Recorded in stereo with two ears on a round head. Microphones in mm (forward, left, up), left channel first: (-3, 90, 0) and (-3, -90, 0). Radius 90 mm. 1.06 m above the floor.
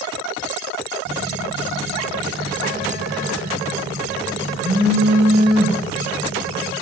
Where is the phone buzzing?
60° right (ahead or behind), 1.9 m.